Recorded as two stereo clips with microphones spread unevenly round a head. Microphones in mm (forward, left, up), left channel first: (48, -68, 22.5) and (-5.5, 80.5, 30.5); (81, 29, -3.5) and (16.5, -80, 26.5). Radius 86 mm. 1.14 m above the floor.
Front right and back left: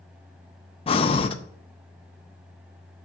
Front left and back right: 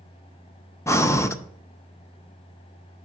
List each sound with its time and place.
0.9 s breathing: 15° right, 0.6 m